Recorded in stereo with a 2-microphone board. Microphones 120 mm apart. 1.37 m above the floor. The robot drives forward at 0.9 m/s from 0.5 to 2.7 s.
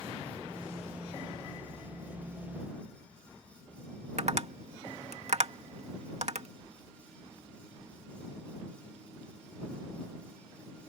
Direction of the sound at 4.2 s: 65° right (ahead or behind).